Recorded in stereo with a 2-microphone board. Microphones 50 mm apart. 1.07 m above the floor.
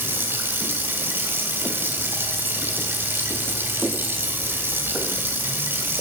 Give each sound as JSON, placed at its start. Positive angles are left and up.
{"t": 0.0, "sound": "running water", "side_deg": -50, "distance_m": 1.9}